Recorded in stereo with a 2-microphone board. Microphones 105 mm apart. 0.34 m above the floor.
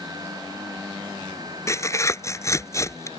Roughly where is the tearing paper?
Left.